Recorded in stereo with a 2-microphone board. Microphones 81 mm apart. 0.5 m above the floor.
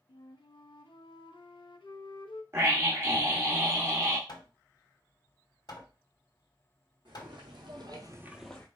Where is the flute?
85° left, 0.6 m.